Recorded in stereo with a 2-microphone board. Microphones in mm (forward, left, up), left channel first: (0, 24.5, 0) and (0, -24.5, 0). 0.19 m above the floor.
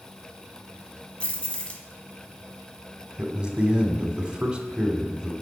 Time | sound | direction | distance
1.2 | keys jangling | 25° left (ahead or behind) | 1.2 m
3.2 | a man speaking | 20° right (ahead or behind) | 1.1 m